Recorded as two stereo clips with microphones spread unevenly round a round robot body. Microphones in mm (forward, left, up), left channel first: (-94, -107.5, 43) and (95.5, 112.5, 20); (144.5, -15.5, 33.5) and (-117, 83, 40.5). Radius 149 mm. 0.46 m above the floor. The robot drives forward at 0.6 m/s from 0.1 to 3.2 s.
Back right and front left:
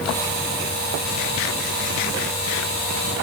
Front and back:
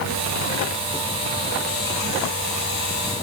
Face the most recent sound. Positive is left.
No sound to turn to.